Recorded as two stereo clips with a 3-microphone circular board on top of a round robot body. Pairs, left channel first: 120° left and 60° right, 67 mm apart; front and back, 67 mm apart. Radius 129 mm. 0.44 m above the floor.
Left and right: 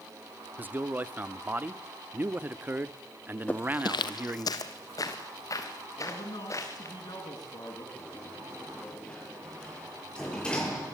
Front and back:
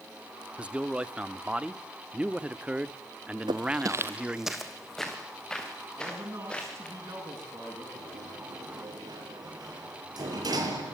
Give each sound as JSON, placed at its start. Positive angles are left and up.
{"t": 0.6, "sound": "a man speaking", "azimuth_deg": -115, "distance_m": 1.1}
{"t": 3.5, "sound": "footsteps", "azimuth_deg": -165, "distance_m": 0.7}
{"t": 6.0, "sound": "a man speaking", "azimuth_deg": 135, "distance_m": 7.0}
{"t": 8.0, "sound": "a sliding door", "azimuth_deg": -165, "distance_m": 6.5}